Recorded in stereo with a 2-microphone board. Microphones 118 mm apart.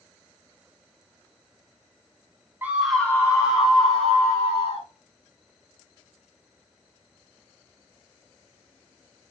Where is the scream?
15° right (ahead or behind), 0.7 m; by 4.9 s 50° left (ahead or behind), 1.8 m.